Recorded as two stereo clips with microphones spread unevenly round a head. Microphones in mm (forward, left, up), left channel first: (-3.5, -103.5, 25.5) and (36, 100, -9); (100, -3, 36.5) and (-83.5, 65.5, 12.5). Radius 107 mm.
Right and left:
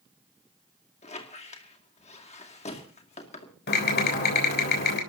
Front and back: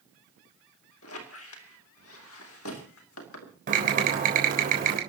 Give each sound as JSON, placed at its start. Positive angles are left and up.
{"t": 1.0, "sound": "a squeak", "azimuth_deg": -45, "distance_m": 2.5}
{"t": 3.7, "sound": "typing on a keyboard", "azimuth_deg": -145, "distance_m": 3.5}